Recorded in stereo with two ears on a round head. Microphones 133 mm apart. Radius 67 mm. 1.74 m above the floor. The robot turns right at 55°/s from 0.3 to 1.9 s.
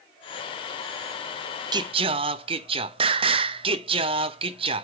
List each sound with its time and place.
1.7 s singing: 30° right (ahead or behind), 0.6 m; by 4.8 s 40° right (ahead or behind), 0.6 m